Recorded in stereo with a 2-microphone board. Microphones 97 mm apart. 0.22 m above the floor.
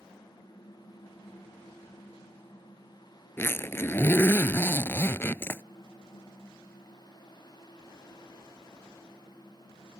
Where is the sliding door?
No sliding door in this recording.